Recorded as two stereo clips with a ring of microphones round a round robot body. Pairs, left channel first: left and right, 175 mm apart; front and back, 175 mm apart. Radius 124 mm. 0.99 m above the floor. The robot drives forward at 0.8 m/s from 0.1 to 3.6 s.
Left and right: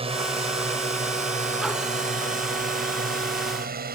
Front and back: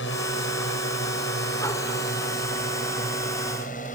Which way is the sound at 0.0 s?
35° right.